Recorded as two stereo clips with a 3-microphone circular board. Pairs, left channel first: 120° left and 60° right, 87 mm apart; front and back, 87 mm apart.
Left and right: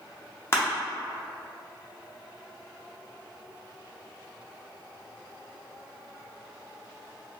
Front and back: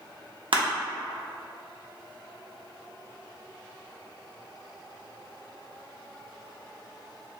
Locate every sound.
0.5 s crushing: straight behind, 0.5 m